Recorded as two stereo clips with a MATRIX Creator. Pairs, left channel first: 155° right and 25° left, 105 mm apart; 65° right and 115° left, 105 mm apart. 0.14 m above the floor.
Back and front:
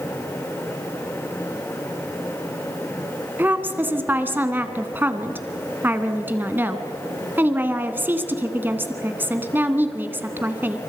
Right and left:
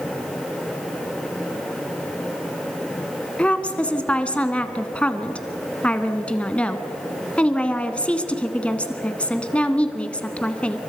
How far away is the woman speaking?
About 1.2 m.